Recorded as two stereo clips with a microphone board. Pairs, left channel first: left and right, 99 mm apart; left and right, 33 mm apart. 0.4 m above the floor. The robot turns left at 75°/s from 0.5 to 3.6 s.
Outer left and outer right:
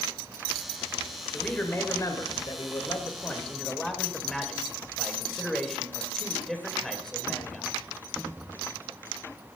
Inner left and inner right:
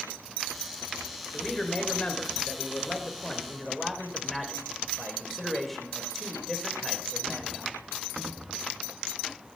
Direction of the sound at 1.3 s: 175° left.